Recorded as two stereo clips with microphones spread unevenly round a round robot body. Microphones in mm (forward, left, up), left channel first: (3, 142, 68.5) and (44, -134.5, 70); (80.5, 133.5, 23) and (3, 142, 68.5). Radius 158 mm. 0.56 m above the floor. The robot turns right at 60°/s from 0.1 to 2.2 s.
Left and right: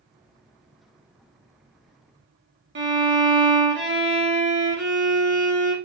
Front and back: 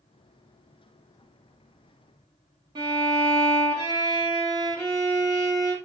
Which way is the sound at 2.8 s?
120° right.